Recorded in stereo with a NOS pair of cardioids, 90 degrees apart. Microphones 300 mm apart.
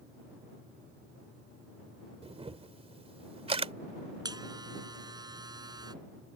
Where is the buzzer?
15° right.